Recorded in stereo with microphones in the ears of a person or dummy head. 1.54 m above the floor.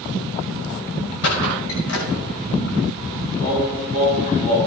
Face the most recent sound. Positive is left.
turn(degrees=40)  # may be behind; listen again after turning